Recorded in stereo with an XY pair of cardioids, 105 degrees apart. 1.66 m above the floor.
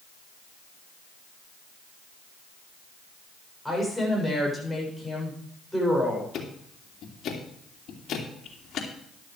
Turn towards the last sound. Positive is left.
turn(degrees=65)